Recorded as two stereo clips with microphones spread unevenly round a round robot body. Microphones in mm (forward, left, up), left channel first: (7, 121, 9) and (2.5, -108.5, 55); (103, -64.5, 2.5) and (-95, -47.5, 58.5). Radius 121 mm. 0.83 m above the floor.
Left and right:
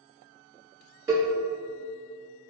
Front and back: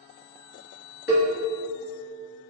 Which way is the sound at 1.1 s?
10° right.